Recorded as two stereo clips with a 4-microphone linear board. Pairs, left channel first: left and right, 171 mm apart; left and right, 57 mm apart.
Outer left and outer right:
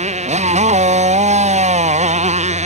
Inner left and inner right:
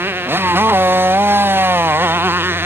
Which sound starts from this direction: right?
A motorcycle, at 0.0 s.